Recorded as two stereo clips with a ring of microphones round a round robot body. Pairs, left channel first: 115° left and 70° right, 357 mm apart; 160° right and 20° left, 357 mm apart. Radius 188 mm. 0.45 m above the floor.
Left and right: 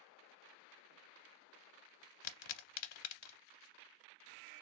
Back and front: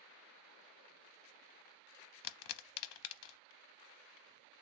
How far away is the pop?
About 0.6 m.